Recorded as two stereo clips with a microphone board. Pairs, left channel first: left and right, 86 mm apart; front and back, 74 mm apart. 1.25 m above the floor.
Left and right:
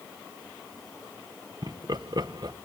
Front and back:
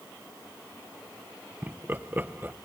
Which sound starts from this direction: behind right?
Laughter, at 1.6 s.